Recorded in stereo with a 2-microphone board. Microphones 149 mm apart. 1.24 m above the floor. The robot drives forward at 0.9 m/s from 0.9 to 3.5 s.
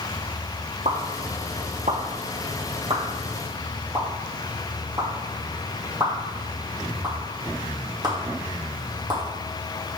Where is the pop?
55° right (ahead or behind), 1.3 m; by 9.2 s 30° right (ahead or behind), 2 m.